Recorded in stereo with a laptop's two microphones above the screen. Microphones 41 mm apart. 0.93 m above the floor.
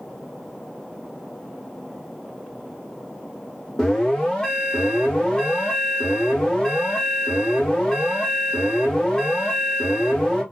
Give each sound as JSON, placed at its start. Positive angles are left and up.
{"t": 3.8, "sound": "an alarm", "side_deg": 20, "distance_m": 1.0}